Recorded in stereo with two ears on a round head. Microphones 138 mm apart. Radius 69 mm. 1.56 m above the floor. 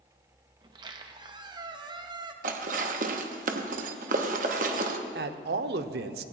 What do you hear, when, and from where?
0.6 s a squeak: 30° right (ahead or behind), 0.8 m
2.4 s dishes clattering: 55° right (ahead or behind), 1.0 m
5.2 s a man speaking: 70° right (ahead or behind), 0.7 m